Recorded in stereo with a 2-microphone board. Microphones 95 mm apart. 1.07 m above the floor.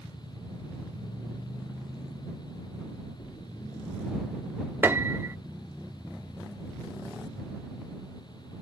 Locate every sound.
3.2 s a splash: 55° left (ahead or behind)
4.8 s a piano: 20° right (ahead or behind)